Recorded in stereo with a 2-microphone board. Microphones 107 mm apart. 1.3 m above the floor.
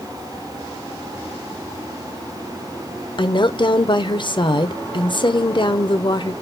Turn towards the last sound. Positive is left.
turn(degrees=50)  # may be behind; listen again after turning